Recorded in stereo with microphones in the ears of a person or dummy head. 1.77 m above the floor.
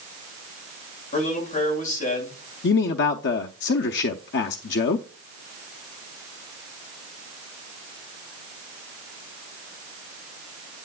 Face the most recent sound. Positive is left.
turn(degrees=65)  # may be behind; listen again after turning